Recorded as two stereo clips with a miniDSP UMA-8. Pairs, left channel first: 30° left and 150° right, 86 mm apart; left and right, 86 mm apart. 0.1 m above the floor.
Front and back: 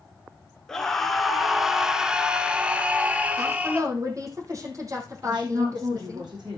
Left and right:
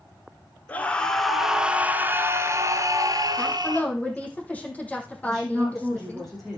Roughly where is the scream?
Left.